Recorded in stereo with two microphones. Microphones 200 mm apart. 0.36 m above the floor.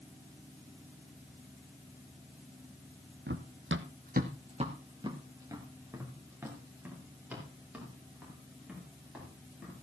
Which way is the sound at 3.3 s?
60° right (ahead or behind).